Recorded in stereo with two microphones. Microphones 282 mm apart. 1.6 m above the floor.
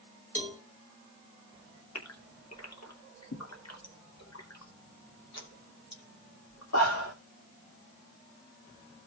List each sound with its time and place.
0.3 s a cowbell: 25° left (ahead or behind), 1.7 m
1.9 s a gasp: 60° left (ahead or behind), 2.5 m